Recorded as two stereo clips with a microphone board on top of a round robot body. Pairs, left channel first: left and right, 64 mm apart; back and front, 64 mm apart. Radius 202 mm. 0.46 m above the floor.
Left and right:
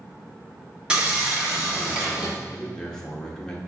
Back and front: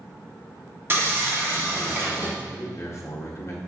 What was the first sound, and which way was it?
Sawing, 25° right.